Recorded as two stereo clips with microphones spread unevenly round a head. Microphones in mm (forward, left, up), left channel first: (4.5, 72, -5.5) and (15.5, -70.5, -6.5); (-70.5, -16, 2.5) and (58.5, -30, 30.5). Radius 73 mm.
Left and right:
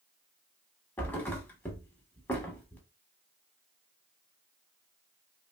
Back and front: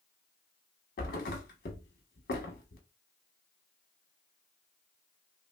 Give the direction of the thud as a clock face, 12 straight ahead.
6 o'clock.